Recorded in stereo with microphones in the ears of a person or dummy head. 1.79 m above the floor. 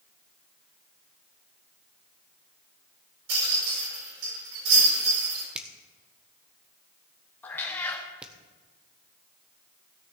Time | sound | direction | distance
3.3 | a rattle | 65° right (ahead or behind) | 6 m
5.5 | a finger snap | 5° right (ahead or behind) | 0.9 m
7.4 | a cat meowing | 15° left (ahead or behind) | 1.6 m